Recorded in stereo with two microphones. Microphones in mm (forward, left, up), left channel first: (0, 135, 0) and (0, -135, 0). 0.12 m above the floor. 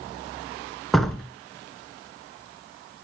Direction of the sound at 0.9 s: Centre (ahead or behind).